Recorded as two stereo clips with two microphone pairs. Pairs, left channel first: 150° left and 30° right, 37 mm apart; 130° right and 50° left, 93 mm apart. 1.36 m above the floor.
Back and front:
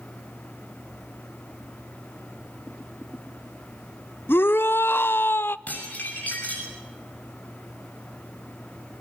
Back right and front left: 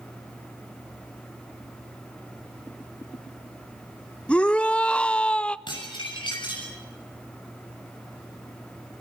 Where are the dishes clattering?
165° right, 7 m.